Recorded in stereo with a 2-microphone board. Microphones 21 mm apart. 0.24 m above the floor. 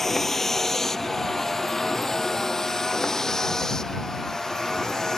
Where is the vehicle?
10° left (ahead or behind); by 5.2 s 30° left (ahead or behind).